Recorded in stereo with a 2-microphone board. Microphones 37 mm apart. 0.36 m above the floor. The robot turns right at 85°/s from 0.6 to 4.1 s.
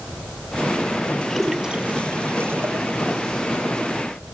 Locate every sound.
1.3 s a splash: 10° left (ahead or behind); by 3.2 s 30° right (ahead or behind)